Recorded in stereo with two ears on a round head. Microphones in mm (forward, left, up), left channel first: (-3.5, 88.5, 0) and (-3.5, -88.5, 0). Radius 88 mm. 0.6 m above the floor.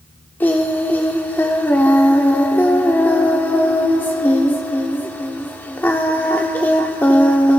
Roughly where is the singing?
Centre.